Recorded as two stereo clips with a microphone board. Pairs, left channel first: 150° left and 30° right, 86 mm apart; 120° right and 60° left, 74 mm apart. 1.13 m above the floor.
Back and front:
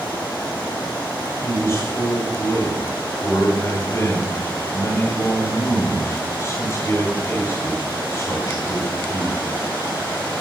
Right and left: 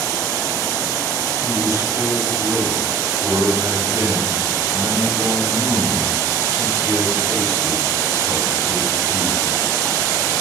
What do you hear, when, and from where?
1.4 s a man speaking: 100° left, 5 m